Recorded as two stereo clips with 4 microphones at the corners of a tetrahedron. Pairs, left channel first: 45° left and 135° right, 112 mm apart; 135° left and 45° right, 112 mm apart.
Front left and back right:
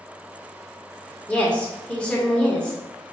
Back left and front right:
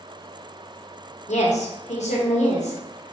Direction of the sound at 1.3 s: 125° left.